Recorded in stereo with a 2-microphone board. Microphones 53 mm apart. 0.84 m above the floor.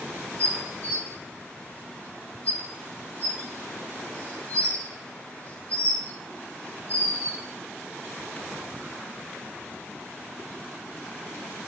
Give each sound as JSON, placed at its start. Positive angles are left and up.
{"t": 0.4, "sound": "dishes clattering", "side_deg": 30, "distance_m": 0.7}